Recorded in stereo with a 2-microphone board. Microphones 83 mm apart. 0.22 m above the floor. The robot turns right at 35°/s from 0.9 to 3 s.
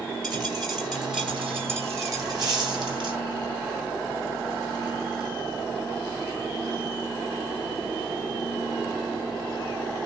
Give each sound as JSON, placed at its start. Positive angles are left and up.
{"t": 0.2, "sound": "a dropped coin", "side_deg": 5, "distance_m": 2.5}